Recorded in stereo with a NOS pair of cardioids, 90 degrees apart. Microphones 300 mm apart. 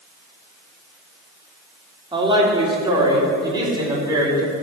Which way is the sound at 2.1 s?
15° right.